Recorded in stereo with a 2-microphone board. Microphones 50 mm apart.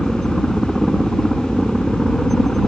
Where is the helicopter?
5° left (ahead or behind).